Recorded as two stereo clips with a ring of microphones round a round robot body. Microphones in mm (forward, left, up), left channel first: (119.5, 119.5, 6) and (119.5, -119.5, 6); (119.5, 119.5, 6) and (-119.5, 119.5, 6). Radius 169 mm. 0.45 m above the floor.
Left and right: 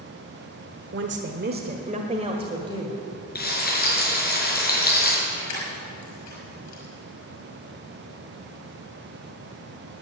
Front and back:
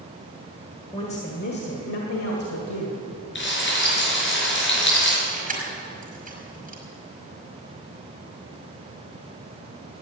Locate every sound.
0.9 s a woman speaking: 70° right, 1.3 m; by 3.0 s 15° right, 2 m
3.4 s frying: 40° left, 5.5 m
5.3 s keys jangling: 125° left, 5.5 m